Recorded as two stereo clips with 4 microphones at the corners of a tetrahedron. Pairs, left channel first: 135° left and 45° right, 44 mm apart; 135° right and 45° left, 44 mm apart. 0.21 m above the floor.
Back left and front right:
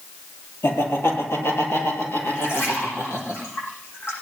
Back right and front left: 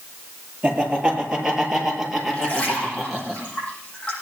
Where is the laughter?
115° left, 6 m; by 3.3 s 135° left, 7.5 m.